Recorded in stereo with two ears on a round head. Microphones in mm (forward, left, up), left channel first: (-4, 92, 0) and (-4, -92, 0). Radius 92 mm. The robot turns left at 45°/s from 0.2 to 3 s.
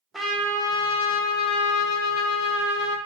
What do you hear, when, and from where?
0.1 s a trumpet: straight behind, 0.6 m; by 3.0 s 55° left, 0.6 m